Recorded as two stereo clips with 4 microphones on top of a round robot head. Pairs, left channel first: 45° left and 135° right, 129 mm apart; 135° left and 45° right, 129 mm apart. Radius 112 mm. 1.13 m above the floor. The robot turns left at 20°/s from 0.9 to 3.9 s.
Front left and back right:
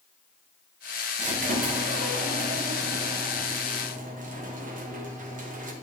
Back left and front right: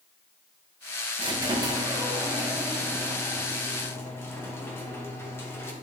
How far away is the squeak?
About 0.9 m.